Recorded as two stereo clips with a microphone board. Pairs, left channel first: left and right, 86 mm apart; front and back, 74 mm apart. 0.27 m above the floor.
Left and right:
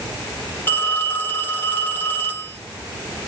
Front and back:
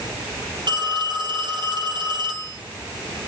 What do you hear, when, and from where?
0.7 s a phone ringing: 160° left, 4.5 m